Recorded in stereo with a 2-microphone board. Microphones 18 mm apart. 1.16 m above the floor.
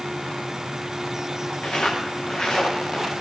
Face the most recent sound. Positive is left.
turn(degrees=65)  # may be behind; listen again after turning